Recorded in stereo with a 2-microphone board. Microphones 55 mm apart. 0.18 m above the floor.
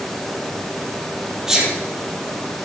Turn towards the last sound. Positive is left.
turn(degrees=-10)  # may be behind; listen again after turning